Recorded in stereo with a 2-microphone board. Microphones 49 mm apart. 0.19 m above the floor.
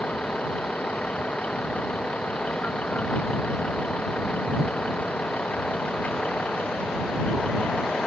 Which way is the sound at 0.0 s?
30° left (ahead or behind).